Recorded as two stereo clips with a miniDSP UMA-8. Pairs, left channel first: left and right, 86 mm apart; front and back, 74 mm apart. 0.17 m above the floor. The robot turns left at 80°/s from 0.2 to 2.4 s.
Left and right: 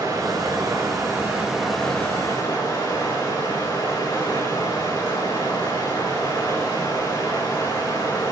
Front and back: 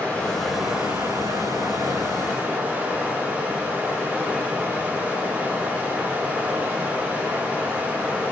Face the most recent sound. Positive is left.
turn(degrees=120)